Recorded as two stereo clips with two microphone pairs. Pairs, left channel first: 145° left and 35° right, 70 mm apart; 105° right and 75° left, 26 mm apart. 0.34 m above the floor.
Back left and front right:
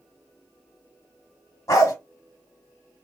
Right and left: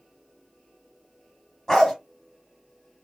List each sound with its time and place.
1.7 s a dog barking: 175° left, 1.1 m